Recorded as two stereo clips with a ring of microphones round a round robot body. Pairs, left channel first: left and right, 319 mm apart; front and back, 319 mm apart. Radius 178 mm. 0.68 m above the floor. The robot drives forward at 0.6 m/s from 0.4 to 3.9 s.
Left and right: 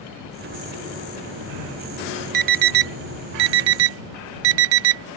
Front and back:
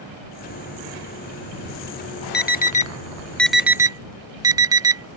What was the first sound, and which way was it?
An alarm, 60° right.